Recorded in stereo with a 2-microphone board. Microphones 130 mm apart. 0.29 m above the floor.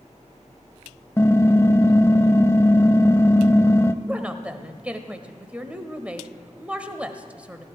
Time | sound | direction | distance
1.2 | typing on a keyboard | 20° left (ahead or behind) | 0.5 m
4.0 | a woman speaking | 10° right (ahead or behind) | 1.1 m